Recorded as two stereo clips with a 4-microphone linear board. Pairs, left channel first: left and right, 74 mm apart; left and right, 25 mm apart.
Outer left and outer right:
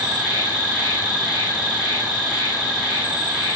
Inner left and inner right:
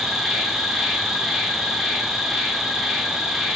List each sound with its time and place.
0.0 s an insect: 15° right (ahead or behind), 2.5 m